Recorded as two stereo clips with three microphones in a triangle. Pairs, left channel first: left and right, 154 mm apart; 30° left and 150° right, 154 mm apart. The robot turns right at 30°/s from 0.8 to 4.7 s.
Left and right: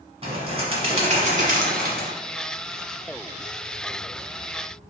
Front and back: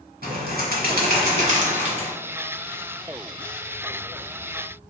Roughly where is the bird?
Behind right.